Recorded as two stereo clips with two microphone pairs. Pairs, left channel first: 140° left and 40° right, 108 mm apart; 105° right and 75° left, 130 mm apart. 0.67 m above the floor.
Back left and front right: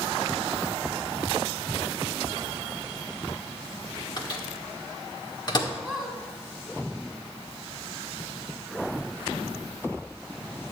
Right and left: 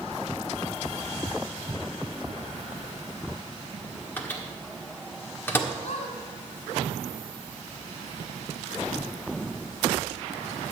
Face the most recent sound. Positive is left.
turn(degrees=-130)